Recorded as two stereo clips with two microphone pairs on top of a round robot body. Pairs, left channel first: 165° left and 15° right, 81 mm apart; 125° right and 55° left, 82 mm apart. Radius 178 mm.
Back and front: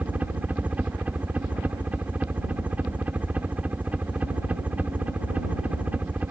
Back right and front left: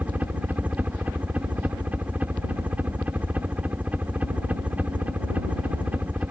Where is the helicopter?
25° left.